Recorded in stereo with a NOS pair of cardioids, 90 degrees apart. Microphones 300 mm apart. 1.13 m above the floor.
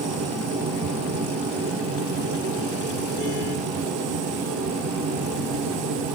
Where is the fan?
60° right, 8 m.